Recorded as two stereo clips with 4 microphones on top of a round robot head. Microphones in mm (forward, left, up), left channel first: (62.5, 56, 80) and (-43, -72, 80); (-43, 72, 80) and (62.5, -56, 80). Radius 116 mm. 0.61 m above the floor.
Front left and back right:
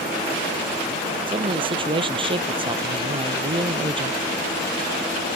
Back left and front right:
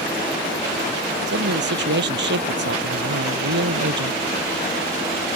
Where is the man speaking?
70° right.